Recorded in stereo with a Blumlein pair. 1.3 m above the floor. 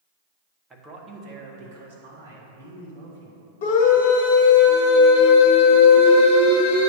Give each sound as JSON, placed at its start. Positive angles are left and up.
{"t": 0.7, "sound": "a man speaking", "azimuth_deg": -10, "distance_m": 1.1}
{"t": 3.6, "sound": "a scream", "azimuth_deg": 50, "distance_m": 1.3}